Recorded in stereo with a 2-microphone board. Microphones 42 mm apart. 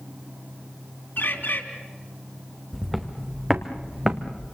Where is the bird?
65° left (ahead or behind), 2.5 m.